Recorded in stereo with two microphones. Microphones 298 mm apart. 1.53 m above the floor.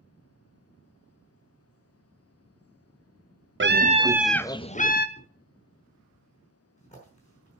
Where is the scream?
40° right (ahead or behind), 0.6 m; by 5.1 s 30° left (ahead or behind), 0.8 m.